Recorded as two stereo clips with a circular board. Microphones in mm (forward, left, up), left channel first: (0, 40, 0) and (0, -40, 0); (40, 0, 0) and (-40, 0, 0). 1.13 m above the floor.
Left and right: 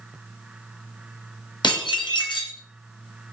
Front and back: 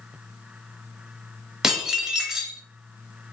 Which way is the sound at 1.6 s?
95° left.